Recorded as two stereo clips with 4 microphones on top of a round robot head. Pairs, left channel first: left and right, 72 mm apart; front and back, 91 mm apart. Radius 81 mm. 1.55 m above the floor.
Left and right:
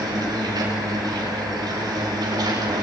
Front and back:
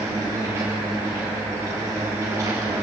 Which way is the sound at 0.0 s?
115° right.